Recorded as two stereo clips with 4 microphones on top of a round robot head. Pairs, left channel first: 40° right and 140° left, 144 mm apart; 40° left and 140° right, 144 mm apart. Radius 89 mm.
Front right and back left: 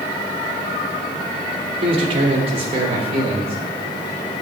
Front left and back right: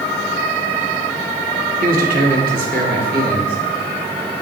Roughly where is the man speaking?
Behind.